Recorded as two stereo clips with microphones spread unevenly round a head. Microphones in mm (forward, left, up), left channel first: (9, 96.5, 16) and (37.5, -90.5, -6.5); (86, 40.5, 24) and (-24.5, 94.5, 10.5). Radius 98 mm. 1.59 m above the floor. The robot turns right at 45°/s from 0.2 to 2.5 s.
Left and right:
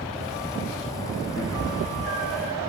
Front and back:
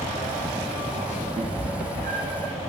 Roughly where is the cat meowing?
Behind left.